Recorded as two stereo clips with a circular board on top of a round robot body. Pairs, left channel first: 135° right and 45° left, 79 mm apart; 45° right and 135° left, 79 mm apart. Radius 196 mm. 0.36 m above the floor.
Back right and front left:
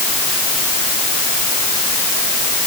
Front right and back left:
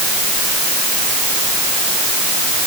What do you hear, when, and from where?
Only background noise.